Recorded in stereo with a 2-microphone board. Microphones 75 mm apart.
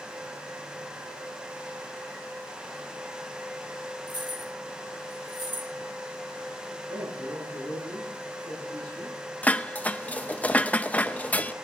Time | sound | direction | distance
4.1 | keys jangling | 85° right | 2.5 m
6.9 | a man speaking | 85° right | 9.5 m
9.4 | dishes clattering | 20° left (ahead or behind) | 0.5 m